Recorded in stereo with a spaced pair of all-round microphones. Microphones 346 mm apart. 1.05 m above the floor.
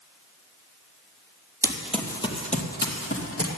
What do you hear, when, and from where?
1.6 s running footsteps: 10° right (ahead or behind), 1.7 m; by 3.5 s 45° left (ahead or behind), 2.5 m